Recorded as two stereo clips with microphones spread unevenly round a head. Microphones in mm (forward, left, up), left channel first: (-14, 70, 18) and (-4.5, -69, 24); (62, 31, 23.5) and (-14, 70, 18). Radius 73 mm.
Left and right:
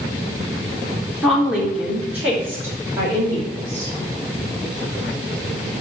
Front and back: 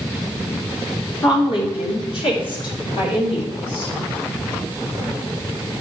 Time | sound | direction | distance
1.2 | a woman speaking | straight ahead | 3.5 m